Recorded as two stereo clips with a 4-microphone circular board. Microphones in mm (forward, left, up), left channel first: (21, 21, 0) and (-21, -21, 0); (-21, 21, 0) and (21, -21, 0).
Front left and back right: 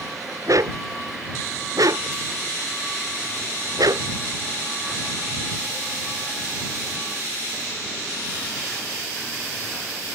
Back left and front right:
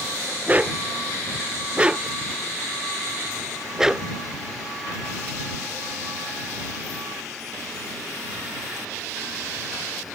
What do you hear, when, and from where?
0.5 s a dog barking: 110° right; by 4.1 s 125° right